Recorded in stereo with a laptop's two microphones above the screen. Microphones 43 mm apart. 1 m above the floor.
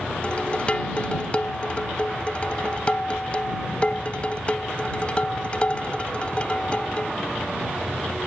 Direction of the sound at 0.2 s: 25° left (ahead or behind).